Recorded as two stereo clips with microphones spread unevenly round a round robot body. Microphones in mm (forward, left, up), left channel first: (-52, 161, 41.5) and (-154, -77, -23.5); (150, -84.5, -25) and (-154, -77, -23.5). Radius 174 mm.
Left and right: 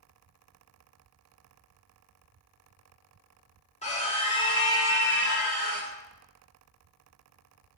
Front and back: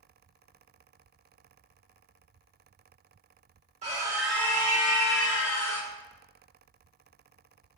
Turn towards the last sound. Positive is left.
turn(degrees=-35)